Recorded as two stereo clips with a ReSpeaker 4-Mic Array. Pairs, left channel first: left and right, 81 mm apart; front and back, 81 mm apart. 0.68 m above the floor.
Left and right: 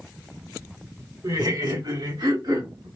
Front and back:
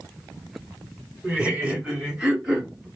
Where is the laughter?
110° right, 2.5 m; by 2.9 s 95° right, 3.5 m.